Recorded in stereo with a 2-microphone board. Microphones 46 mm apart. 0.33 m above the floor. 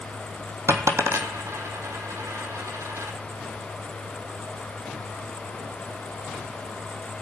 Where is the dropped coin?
80° right, 1.3 m.